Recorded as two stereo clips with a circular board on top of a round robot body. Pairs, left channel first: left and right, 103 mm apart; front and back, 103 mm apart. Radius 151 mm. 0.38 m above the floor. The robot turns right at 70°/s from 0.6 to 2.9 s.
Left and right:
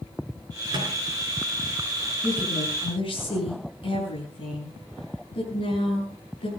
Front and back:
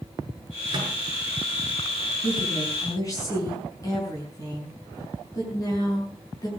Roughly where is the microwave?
Behind right.